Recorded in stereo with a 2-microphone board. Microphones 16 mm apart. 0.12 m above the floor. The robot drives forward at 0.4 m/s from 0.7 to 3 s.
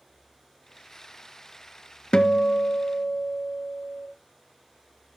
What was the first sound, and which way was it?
A guitar, 50° left (ahead or behind).